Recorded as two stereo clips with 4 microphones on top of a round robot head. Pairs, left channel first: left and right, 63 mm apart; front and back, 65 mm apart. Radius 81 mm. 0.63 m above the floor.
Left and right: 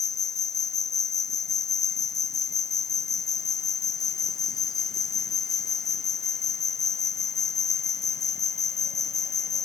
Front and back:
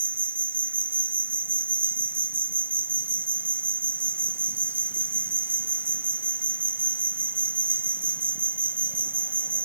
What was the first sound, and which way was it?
An insect, 120° left.